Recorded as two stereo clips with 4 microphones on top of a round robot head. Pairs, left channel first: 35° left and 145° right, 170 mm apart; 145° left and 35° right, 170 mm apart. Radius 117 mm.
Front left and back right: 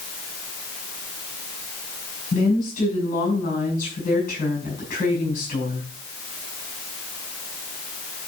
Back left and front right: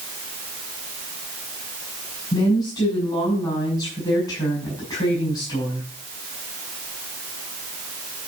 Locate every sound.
2.3 s a woman speaking: 80° left, 7.5 m